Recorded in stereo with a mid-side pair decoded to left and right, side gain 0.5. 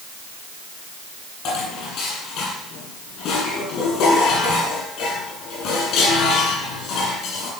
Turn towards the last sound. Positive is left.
turn(degrees=70)